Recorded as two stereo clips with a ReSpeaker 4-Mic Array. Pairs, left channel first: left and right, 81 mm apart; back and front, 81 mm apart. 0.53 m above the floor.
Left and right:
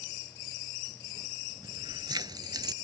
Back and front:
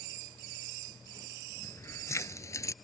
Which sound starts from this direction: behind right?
Keys jangling, at 1.6 s.